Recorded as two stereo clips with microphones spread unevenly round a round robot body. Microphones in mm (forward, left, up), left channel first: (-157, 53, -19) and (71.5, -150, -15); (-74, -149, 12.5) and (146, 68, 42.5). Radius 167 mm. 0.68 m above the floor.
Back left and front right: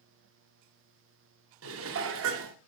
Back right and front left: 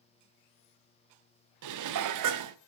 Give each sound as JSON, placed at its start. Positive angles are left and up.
{"t": 1.6, "sound": "dishes clattering", "azimuth_deg": 10, "distance_m": 0.7}